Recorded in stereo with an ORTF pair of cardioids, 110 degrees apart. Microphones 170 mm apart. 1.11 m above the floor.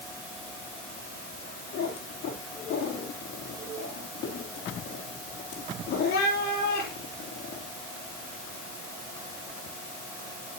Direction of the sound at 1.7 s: 70° left.